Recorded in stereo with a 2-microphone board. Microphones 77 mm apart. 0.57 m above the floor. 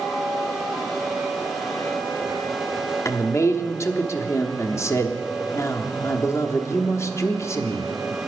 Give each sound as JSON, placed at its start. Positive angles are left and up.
{"t": 3.0, "sound": "a man speaking", "side_deg": 40, "distance_m": 0.9}